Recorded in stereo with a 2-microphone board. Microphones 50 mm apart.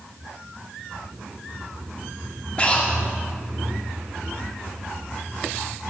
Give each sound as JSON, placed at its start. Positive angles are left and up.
{"t": 2.6, "sound": "breathing", "side_deg": 25, "distance_m": 0.9}